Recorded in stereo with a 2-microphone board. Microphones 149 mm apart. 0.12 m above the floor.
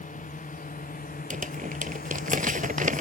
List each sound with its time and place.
0.0 s a drone: 55° left (ahead or behind); by 3.0 s 75° left (ahead or behind)
1.3 s crumpling: 60° right (ahead or behind)